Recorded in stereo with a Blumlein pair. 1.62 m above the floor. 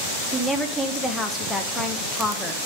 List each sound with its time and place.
0.3 s a woman speaking: 10° left, 1.3 m